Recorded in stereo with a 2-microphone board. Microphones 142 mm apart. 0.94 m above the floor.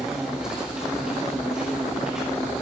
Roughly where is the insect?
Centre.